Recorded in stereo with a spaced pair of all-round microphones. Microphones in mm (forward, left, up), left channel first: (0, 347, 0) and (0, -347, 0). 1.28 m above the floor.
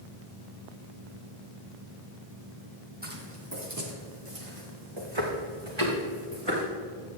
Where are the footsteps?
15° right (ahead or behind), 2.5 m; by 6.6 s 45° right (ahead or behind), 5.5 m.